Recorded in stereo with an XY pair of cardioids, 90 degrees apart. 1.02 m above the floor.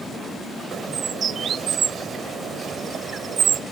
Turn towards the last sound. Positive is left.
turn(degrees=-70)